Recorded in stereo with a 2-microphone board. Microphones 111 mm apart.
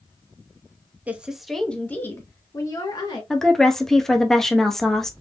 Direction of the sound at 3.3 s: 5° left (ahead or behind).